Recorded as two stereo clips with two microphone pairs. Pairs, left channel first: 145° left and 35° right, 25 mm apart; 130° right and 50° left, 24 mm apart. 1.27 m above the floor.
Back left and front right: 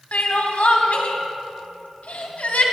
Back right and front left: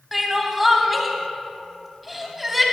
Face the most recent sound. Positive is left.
turn(degrees=140)